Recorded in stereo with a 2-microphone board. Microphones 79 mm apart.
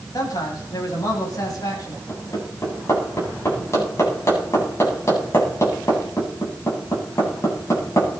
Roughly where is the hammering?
Left.